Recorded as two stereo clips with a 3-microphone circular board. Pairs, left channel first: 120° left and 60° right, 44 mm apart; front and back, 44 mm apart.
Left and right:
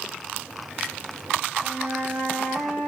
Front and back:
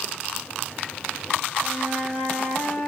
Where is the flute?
45° right, 1.7 m.